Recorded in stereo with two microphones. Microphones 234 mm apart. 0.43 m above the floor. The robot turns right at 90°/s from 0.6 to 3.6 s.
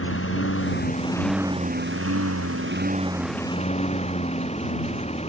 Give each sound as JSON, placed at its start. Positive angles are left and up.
{"t": 0.0, "sound": "a lawn mower", "azimuth_deg": 115}